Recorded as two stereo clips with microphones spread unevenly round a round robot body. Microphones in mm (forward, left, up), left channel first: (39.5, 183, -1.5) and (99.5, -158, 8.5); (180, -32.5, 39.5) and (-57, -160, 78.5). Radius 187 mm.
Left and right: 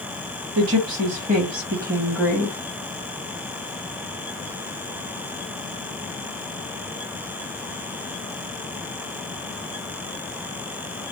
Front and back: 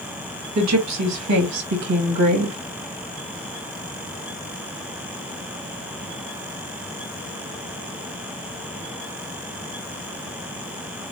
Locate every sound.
0.6 s a woman speaking: 125° right, 1.6 m; by 2.6 s 175° left, 1.3 m